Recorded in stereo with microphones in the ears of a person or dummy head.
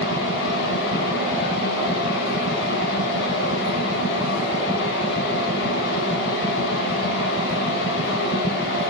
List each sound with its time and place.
0.0 s a fan: 70° left (ahead or behind), 3 m